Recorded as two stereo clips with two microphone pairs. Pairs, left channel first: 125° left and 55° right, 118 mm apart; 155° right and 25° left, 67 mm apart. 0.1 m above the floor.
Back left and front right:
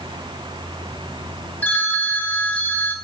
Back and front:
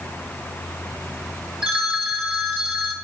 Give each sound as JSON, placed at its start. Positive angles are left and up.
{"t": 1.6, "sound": "a phone ringing", "azimuth_deg": 65, "distance_m": 0.7}